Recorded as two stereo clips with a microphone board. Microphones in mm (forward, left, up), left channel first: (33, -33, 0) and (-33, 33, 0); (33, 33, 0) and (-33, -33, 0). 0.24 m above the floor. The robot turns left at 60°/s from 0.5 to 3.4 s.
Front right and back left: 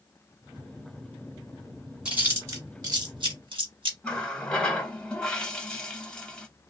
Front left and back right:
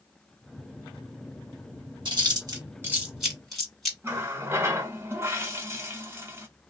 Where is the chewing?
145° right, 1.6 m; by 3.9 s 130° left, 1.6 m.